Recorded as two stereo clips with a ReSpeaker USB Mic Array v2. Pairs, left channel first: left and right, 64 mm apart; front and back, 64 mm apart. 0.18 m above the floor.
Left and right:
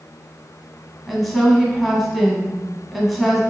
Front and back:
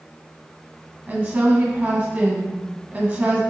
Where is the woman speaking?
Straight behind, 1.4 m.